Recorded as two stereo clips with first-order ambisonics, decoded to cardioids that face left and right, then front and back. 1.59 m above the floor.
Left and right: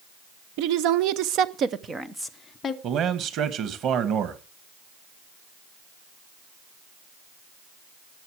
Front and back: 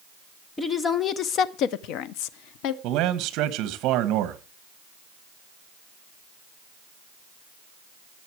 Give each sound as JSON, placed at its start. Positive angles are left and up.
{"t": 0.6, "sound": "a woman speaking", "azimuth_deg": -75, "distance_m": 1.3}
{"t": 2.8, "sound": "a man speaking", "azimuth_deg": -140, "distance_m": 1.8}